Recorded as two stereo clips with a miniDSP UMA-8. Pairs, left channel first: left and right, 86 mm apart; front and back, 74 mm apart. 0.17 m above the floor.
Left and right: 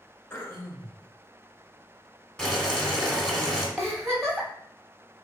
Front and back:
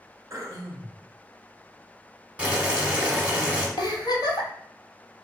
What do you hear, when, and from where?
0.3 s throat clearing: 145° left, 0.7 m
2.4 s boiling: 155° left, 0.9 m
3.8 s a giggle: straight ahead, 1.1 m